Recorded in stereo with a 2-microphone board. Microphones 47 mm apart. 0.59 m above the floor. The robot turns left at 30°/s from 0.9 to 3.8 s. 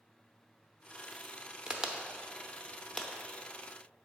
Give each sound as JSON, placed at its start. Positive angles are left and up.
{"t": 1.7, "sound": "a crack", "side_deg": -25, "distance_m": 0.6}